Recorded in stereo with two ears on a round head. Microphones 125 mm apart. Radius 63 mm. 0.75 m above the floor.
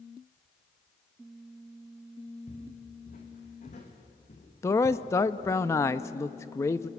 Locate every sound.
2.5 s footsteps: 55° left (ahead or behind), 4.5 m; by 5.6 s 45° left (ahead or behind), 2 m
4.6 s a man speaking: 20° left (ahead or behind), 0.6 m